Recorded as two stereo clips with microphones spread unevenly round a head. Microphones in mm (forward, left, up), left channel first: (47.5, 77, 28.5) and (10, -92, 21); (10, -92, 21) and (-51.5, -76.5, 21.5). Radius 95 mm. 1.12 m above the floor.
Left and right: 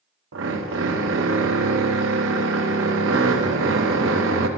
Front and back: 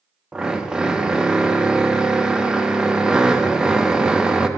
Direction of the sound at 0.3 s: 115° right.